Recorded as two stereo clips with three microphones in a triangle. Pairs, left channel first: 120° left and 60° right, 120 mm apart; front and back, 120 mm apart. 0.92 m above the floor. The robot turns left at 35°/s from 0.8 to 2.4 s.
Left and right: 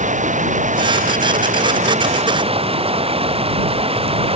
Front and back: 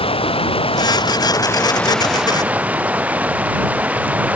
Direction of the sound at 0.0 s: 45° right.